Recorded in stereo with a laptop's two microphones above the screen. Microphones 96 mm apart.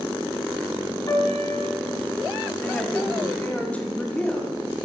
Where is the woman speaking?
15° left (ahead or behind), 2.5 m.